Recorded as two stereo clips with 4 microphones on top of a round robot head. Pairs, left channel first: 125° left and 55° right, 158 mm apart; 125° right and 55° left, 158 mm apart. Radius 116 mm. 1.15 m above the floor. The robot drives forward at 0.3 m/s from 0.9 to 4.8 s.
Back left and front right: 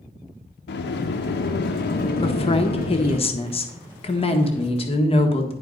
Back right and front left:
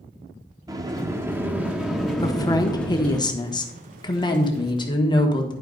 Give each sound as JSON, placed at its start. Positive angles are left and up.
{"t": 0.7, "sound": "a sliding door", "azimuth_deg": 125, "distance_m": 0.6}
{"t": 2.2, "sound": "a woman speaking", "azimuth_deg": 170, "distance_m": 1.0}